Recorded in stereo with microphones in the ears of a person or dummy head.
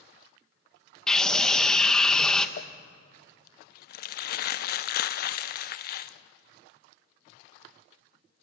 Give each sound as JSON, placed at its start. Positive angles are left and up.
{"t": 1.1, "sound": "a scream", "side_deg": 5, "distance_m": 1.6}
{"t": 2.6, "sound": "crumpling", "side_deg": 60, "distance_m": 0.6}